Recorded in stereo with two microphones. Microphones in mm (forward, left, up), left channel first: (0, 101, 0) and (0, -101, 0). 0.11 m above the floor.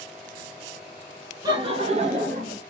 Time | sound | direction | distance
1.4 | laughter | 20° right (ahead or behind) | 1.1 m